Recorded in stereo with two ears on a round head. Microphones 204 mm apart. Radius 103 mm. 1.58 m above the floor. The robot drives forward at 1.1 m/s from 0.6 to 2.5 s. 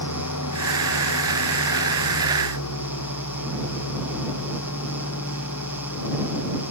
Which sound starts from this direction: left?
An engine running, at 0.0 s.